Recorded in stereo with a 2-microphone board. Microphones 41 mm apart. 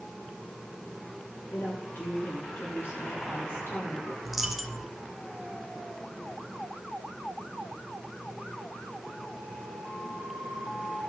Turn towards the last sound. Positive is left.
turn(degrees=-5)  # may be behind; listen again after turning